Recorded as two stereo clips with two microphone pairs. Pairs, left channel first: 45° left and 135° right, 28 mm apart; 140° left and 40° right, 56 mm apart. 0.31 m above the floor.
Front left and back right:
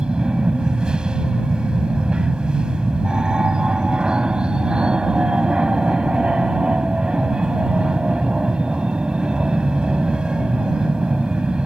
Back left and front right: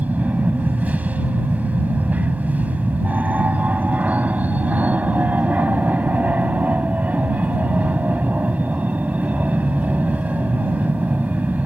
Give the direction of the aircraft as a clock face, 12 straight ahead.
3 o'clock.